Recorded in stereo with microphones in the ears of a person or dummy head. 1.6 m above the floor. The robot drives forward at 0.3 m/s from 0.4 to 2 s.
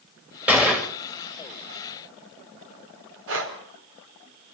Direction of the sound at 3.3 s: 80° right.